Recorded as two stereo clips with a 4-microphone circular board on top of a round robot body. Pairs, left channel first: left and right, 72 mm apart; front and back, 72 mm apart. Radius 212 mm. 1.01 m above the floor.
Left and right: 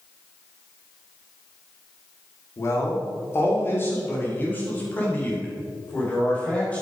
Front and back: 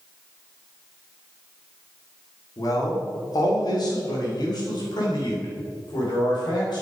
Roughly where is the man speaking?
Ahead left.